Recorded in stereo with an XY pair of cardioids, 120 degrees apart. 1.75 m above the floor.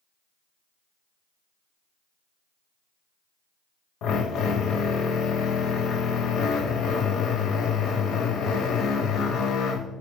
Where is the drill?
65° left, 0.5 m.